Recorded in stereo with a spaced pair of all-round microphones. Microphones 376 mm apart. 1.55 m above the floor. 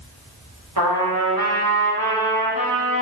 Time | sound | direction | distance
0.8 | a trumpet | 65° right (ahead or behind) | 0.9 m